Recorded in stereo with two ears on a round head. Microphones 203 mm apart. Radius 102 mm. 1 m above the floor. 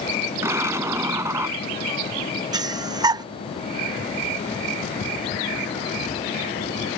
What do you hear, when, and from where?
0.4 s an explosion: 10° right (ahead or behind)
2.5 s breathing: 20° right (ahead or behind)